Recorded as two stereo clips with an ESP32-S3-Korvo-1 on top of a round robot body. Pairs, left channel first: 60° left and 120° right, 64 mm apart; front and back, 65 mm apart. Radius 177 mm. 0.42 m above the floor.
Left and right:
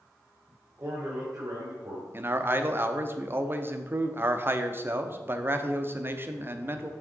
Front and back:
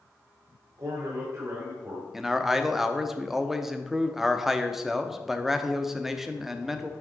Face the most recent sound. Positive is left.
turn(degrees=-95)